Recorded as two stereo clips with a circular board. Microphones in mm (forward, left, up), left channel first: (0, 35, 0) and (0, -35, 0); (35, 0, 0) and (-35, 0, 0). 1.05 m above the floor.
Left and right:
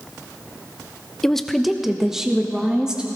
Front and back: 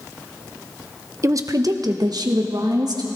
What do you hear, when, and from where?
1.2 s a woman speaking: 170° left, 0.7 m; by 3.1 s 170° right, 2 m